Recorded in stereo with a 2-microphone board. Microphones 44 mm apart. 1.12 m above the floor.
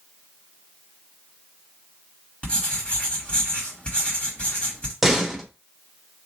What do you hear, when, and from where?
2.4 s writing: 25° left (ahead or behind), 1.8 m
5.0 s a door slam: 5° right (ahead or behind), 1.0 m